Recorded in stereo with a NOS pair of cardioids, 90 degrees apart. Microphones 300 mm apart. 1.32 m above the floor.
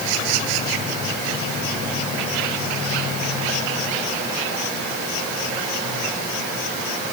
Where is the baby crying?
I don't hear a baby crying.